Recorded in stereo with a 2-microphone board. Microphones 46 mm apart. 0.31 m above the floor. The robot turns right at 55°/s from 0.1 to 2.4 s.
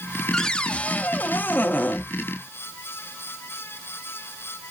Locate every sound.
0.3 s a cupboard door: 20° left, 0.7 m; by 2.0 s 110° left, 0.7 m